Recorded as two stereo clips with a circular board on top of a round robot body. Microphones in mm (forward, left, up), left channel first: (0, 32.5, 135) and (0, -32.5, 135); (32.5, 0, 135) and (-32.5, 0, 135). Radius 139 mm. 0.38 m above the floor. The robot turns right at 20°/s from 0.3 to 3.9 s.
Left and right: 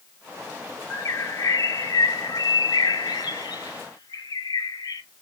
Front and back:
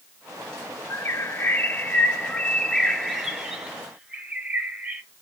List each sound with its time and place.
0.9 s a bird: 45° left, 0.8 m; by 5.0 s 105° left, 0.8 m